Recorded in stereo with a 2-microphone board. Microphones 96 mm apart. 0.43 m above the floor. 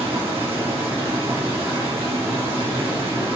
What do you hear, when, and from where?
0.0 s running water: 80° right, 1.8 m